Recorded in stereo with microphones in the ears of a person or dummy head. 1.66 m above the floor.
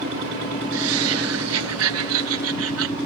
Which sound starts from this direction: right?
Laughter, at 0.7 s.